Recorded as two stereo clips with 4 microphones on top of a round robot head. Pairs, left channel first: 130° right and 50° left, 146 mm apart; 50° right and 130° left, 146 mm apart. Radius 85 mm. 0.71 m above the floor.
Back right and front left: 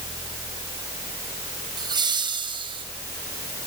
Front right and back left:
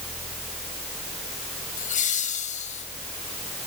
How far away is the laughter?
About 5.5 m.